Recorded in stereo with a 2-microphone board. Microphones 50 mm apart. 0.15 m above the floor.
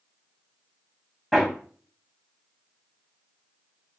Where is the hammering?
Centre (ahead or behind), 5.5 m.